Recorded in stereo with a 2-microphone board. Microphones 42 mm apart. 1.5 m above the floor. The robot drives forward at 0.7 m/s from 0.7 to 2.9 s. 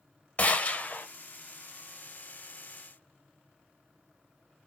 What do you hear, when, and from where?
0.4 s a gunshot: 35° left (ahead or behind), 0.7 m; by 1.1 s 45° left (ahead or behind), 0.6 m